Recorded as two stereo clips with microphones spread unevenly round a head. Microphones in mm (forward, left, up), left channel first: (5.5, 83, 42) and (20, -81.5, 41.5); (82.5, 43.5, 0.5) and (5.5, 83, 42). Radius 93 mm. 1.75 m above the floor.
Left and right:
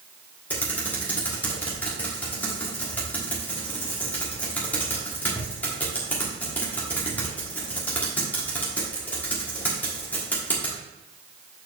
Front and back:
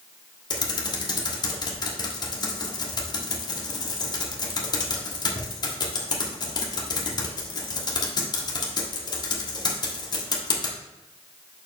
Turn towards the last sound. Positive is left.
turn(degrees=20)